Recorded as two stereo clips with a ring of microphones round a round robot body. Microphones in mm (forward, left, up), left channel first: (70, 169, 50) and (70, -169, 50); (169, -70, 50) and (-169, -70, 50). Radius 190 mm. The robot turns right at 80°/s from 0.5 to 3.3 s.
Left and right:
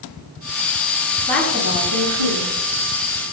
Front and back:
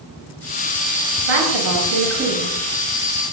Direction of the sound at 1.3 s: 165° left.